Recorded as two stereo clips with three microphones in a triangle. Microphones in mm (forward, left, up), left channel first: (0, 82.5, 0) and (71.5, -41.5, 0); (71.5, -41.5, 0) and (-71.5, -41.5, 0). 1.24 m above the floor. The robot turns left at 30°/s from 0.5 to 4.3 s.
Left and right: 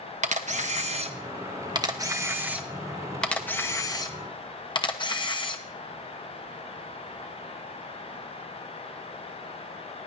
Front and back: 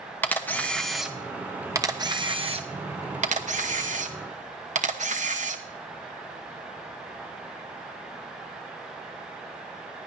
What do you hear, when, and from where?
0.2 s a camera shutter: 75° right, 0.9 m; by 5.6 s 170° left, 0.9 m